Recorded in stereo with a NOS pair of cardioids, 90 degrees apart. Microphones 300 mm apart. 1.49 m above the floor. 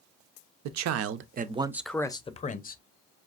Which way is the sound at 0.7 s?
70° right.